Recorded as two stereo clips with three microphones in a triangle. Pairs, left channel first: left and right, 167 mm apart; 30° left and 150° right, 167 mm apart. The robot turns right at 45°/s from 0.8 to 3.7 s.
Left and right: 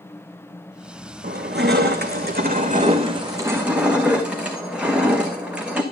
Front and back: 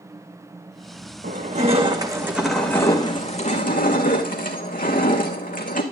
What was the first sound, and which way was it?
Crushing, 115° right.